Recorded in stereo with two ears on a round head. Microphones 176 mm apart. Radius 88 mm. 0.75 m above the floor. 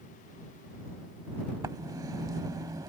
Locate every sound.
1.6 s writing: 20° right (ahead or behind)